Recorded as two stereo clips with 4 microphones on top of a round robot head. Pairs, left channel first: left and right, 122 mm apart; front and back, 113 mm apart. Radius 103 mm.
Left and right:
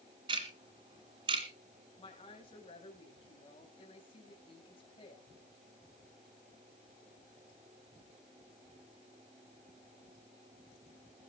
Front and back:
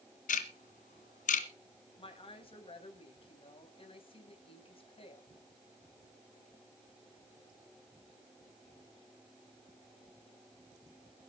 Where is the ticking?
25° right, 1.9 m.